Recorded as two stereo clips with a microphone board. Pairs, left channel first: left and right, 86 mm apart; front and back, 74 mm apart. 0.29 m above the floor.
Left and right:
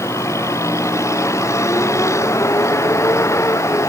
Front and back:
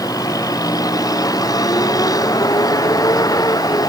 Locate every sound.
0.0 s a vehicle: 35° left